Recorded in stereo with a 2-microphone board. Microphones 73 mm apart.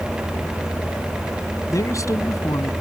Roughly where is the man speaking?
Left.